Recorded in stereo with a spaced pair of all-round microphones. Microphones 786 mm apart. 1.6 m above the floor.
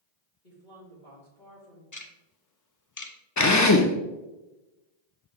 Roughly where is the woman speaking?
Left.